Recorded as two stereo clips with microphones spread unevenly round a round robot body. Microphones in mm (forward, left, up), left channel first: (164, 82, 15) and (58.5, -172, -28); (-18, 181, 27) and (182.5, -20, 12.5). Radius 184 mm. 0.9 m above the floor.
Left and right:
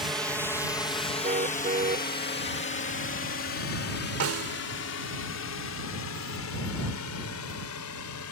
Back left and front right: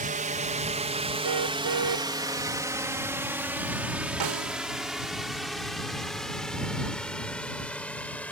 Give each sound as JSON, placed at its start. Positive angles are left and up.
{"t": 0.0, "sound": "a drone", "azimuth_deg": -40}
{"t": 1.2, "sound": "a car horn", "azimuth_deg": -50}
{"t": 4.2, "sound": "a snare drum", "azimuth_deg": -80}